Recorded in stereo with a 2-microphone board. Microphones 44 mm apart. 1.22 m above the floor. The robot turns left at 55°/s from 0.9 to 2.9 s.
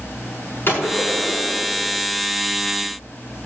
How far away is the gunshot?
About 6.5 m.